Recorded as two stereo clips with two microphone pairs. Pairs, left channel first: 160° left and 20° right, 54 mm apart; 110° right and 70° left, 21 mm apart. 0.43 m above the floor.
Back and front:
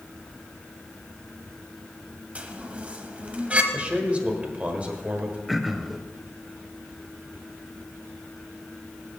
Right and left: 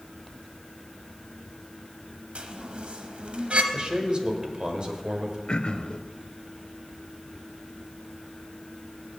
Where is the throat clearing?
110° right, 0.5 m.